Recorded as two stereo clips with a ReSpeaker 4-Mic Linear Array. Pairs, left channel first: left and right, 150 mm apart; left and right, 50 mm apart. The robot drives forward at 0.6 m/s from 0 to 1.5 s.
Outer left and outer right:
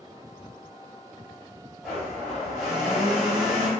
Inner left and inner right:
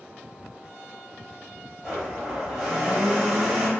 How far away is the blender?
About 1.5 m.